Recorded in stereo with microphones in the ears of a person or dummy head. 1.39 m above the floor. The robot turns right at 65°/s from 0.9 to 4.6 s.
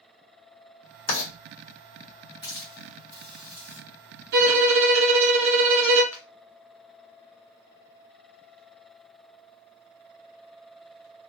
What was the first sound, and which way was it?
Writing, 80° left.